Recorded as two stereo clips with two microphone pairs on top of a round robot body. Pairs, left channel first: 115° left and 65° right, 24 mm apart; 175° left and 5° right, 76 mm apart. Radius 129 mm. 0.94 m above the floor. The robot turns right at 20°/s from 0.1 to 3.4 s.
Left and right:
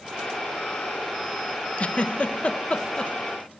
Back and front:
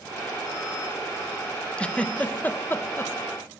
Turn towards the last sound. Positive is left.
turn(degrees=140)